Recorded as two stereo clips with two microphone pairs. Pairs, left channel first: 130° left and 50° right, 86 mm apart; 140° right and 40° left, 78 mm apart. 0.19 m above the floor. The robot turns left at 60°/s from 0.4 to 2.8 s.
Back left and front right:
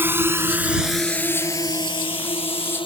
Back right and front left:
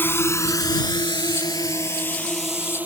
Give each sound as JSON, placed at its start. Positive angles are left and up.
{"t": 0.0, "sound": "a drone", "azimuth_deg": -100}